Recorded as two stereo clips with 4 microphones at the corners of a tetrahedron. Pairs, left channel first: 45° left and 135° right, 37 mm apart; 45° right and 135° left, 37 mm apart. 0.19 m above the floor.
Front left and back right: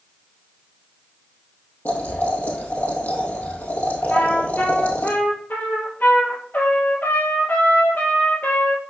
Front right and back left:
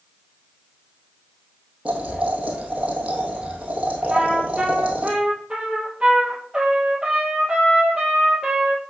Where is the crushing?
No crushing in this recording.